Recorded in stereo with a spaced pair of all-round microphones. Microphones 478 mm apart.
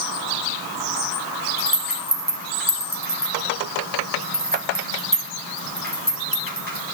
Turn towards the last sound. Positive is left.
turn(degrees=-20)  # may be behind; listen again after turning